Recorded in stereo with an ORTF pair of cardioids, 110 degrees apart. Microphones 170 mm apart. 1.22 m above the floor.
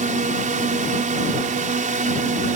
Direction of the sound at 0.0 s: 55° right.